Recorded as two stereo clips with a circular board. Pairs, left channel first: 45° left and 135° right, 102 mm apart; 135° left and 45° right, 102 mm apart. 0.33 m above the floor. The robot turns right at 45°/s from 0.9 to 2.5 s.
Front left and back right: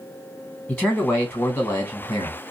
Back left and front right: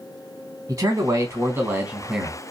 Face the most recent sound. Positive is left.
turn(degrees=35)